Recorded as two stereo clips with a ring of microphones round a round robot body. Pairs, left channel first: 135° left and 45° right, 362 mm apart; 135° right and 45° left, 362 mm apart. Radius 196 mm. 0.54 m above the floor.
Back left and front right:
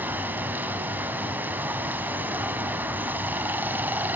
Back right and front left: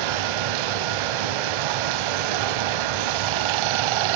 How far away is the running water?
About 0.7 m.